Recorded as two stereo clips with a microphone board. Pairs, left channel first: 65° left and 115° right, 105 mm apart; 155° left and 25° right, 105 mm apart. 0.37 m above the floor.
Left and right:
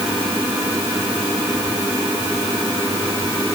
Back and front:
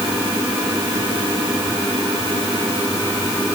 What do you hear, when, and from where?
Only background noise.